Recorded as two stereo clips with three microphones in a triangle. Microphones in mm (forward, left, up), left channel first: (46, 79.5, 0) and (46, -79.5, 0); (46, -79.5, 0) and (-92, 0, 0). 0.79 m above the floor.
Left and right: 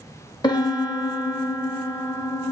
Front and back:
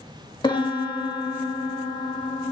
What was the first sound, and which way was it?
A piano, 30° left.